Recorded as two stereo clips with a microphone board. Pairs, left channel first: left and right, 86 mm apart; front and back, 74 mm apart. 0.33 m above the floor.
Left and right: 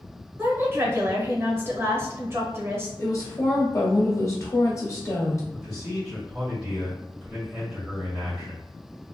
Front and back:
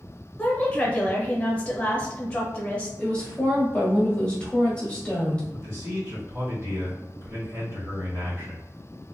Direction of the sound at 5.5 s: 170° right.